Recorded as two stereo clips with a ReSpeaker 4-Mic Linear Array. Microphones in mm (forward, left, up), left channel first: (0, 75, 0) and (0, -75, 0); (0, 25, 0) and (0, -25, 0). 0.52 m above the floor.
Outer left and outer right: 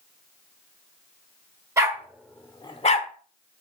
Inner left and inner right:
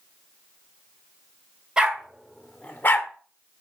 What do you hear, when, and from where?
1.8 s a dog barking: 20° right (ahead or behind), 0.8 m; by 3.1 s 55° left (ahead or behind), 0.6 m